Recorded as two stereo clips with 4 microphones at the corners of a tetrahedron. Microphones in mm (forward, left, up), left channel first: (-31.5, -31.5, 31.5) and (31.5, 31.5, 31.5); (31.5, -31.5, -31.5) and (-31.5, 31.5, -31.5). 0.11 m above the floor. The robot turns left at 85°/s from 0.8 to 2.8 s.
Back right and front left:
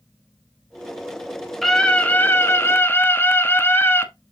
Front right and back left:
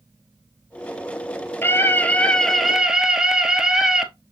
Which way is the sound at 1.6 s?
50° right.